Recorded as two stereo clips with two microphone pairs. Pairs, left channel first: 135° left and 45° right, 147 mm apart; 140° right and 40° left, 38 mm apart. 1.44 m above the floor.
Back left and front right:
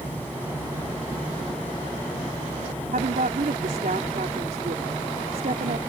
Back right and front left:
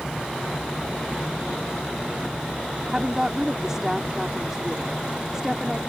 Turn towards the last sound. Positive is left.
turn(degrees=-30)